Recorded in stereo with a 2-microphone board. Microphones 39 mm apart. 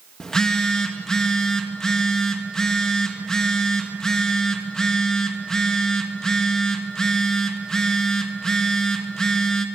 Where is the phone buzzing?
15° left (ahead or behind), 2 m.